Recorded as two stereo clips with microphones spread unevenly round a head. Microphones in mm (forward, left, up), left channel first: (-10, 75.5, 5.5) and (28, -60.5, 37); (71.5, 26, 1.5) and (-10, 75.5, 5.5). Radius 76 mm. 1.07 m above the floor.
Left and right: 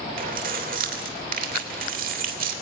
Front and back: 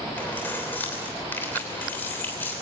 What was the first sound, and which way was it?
Keys jangling, 110° right.